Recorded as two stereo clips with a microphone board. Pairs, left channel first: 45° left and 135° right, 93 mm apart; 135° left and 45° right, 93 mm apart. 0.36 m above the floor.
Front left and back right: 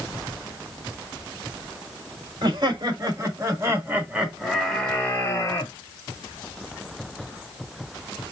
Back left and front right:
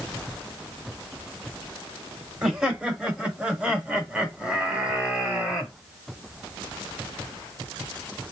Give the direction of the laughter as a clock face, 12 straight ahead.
4 o'clock.